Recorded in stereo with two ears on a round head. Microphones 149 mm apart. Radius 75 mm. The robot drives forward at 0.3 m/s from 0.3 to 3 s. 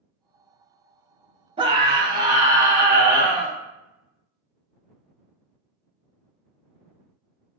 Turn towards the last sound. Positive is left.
turn(degrees=-20)  # may be behind; listen again after turning